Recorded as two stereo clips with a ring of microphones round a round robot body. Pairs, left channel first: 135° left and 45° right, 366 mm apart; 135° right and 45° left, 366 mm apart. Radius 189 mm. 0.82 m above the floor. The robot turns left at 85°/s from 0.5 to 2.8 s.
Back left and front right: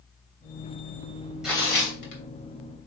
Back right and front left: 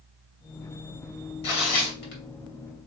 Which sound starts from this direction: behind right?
Tearing paper, at 1.4 s.